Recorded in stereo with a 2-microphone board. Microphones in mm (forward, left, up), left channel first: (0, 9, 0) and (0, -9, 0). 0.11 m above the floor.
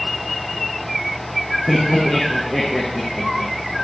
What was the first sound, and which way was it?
Laughter, 60° left (ahead or behind).